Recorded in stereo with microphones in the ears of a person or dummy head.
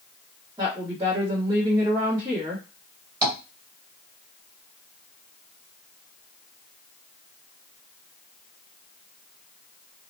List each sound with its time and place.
0.6 s a woman speaking: 25° right (ahead or behind), 1.3 m
3.2 s tapping: 20° right (ahead or behind), 1.8 m